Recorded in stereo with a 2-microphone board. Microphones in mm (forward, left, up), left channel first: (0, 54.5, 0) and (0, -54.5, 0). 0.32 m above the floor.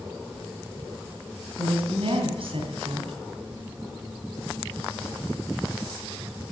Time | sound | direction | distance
1.6 | a woman speaking | 60° right (ahead or behind) | 2.5 m